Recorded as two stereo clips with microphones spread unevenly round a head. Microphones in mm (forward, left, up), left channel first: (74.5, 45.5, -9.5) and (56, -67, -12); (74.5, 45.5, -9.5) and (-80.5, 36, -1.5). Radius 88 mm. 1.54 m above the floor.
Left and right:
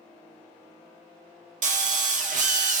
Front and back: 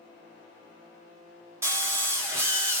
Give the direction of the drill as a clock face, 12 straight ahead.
3 o'clock.